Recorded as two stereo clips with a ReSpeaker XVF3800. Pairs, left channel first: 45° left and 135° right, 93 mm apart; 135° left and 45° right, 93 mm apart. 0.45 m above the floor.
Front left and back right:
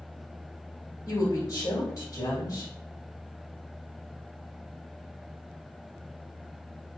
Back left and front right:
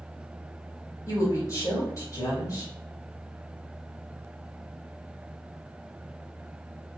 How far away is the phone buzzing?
No phone buzzing in this recording.